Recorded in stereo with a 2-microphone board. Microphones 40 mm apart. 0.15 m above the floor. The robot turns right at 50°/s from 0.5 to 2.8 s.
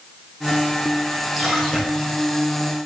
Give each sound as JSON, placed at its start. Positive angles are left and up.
{"t": 1.4, "sound": "a splash", "azimuth_deg": -10, "distance_m": 3.5}